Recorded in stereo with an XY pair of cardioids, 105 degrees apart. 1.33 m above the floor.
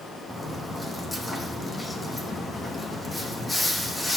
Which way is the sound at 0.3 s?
20° left.